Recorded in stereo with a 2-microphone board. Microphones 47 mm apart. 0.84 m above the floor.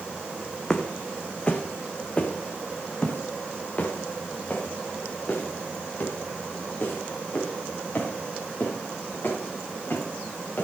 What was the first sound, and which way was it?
Footsteps, 15° left (ahead or behind).